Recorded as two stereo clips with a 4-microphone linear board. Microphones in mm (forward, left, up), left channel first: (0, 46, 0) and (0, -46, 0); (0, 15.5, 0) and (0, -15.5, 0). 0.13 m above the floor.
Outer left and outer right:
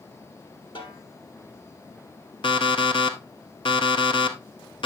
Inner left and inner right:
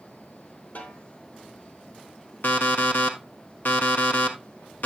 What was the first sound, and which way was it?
A snare drum, 60° left (ahead or behind).